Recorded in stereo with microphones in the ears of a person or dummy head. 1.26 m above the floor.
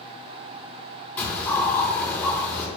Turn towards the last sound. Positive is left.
turn(degrees=10)  # may be behind; listen again after turning